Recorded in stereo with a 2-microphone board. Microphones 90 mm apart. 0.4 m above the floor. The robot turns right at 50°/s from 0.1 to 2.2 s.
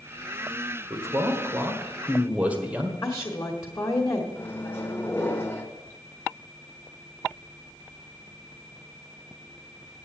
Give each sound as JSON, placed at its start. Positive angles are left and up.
{"t": 0.9, "sound": "a man speaking", "azimuth_deg": -90, "distance_m": 1.6}
{"t": 3.0, "sound": "a woman speaking", "side_deg": 35, "distance_m": 1.5}
{"t": 4.3, "sound": "a microwave", "side_deg": 25, "distance_m": 1.1}